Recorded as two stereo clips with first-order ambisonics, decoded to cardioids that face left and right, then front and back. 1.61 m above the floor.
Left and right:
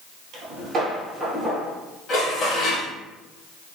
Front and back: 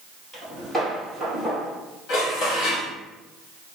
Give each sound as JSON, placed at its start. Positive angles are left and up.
{"t": 0.3, "sound": "footsteps", "azimuth_deg": -80, "distance_m": 2.0}
{"t": 2.1, "sound": "dishes clattering", "azimuth_deg": 30, "distance_m": 1.4}